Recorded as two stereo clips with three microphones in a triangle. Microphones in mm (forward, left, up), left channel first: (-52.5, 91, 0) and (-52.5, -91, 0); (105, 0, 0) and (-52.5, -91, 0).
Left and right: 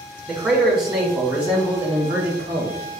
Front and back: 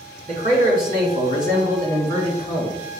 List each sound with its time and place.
0.3 s a man speaking: straight behind, 2.5 m; by 2.8 s 140° right, 1.5 m